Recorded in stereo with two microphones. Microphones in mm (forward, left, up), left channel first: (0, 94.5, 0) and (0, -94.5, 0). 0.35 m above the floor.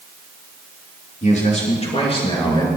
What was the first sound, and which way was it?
A man speaking, 40° left (ahead or behind).